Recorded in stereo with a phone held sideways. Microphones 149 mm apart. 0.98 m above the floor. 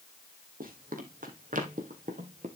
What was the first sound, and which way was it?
Running footsteps, 70° right (ahead or behind).